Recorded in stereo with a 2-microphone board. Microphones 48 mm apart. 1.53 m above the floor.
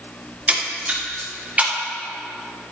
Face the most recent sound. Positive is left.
turn(degrees=-30)  # may be behind; listen again after turning